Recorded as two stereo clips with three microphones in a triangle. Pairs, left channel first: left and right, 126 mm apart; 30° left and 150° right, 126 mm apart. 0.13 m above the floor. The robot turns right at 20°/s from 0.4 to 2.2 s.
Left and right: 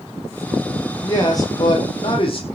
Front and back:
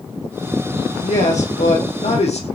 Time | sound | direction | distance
1.0 | a man speaking | 25° left | 4 m